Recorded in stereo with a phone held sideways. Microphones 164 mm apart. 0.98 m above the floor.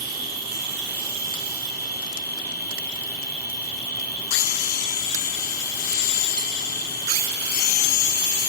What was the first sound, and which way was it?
An insect, 70° left (ahead or behind).